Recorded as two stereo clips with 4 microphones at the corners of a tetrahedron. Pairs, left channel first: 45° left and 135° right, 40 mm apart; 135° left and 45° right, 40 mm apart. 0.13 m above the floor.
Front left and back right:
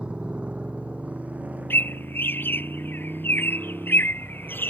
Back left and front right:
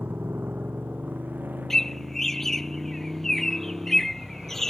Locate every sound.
0.0 s a motorcycle: 75° right; by 4.7 s 100° right
1.7 s a bird: 55° left